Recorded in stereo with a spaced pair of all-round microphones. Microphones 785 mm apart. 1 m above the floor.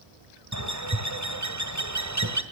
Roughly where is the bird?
Right.